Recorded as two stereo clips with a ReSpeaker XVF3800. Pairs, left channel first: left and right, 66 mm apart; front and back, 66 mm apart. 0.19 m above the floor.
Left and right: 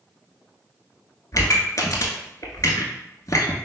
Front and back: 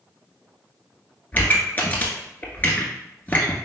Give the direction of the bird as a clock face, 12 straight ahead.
I don't hear a bird.